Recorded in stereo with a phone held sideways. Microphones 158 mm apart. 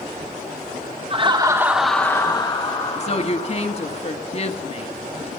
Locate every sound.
1.1 s laughter: 40° right (ahead or behind), 1.3 m; by 4.0 s 60° left (ahead or behind), 2.5 m
3.0 s a woman speaking: 40° left (ahead or behind), 1.2 m